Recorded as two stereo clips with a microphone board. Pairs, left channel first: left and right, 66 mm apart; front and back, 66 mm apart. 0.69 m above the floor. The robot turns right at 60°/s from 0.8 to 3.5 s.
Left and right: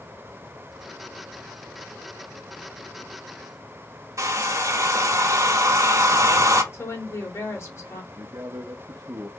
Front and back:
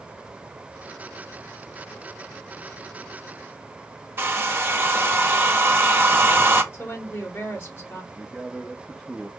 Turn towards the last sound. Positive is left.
turn(degrees=-85)